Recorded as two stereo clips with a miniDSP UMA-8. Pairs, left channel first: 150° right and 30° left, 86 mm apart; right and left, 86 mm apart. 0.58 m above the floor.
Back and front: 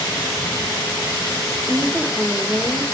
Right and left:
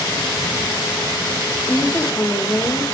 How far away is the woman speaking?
About 1.2 m.